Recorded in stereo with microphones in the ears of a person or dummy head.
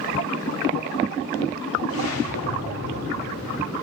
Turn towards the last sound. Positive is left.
turn(degrees=80)